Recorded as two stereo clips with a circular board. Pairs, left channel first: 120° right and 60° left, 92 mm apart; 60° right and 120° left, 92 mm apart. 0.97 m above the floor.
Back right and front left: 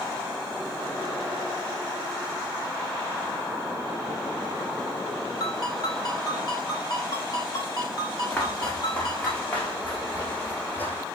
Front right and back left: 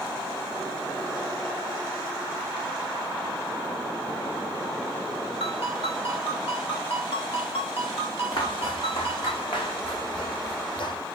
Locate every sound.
5.4 s a ringtone: 70° right, 1.8 m
8.3 s footsteps: 40° right, 3 m; by 11.0 s 55° right, 1.6 m